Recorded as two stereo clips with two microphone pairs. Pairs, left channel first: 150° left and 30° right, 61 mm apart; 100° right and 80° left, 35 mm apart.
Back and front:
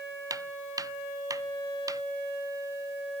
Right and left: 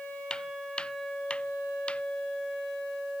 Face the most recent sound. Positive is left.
turn(degrees=-45)